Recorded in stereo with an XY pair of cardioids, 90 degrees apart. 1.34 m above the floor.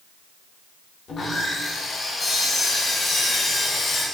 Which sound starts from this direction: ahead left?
Sawing, at 1.1 s.